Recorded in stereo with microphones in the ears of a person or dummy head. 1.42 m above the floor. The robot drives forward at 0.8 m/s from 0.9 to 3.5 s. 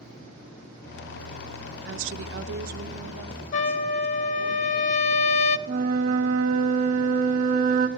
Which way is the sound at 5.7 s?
50° right (ahead or behind).